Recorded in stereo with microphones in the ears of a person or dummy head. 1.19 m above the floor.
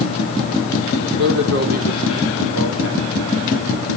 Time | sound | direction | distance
1.0 | a man speaking | 70° right (ahead or behind) | 3.5 m